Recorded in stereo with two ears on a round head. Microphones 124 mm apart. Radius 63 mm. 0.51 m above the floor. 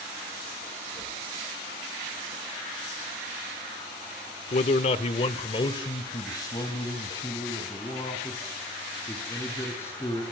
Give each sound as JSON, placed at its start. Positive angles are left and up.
{"t": 4.5, "sound": "a man speaking", "side_deg": 50, "distance_m": 1.0}